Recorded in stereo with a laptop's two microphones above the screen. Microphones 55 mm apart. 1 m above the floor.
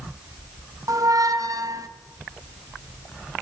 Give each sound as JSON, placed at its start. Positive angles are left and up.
{"t": 0.9, "sound": "a squeak", "side_deg": -80, "distance_m": 0.6}